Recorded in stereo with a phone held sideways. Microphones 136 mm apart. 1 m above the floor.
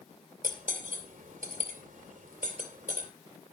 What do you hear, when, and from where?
0.4 s cutlery clinking: 80° right, 2.5 m